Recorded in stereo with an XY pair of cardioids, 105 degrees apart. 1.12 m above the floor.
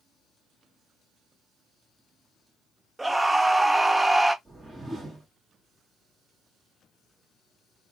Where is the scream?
15° right, 0.8 m.